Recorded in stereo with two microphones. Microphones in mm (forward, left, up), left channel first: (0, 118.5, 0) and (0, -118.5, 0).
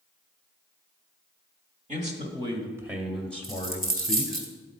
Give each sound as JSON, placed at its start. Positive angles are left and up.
{"t": 1.9, "sound": "a man speaking", "side_deg": -30, "distance_m": 1.3}
{"t": 3.4, "sound": "a dropped coin", "side_deg": -35, "distance_m": 1.4}